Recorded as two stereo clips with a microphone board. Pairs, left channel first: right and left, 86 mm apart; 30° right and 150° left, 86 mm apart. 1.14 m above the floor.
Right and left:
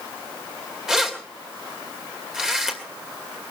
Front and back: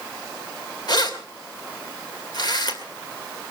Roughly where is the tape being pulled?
I don't hear tape being pulled.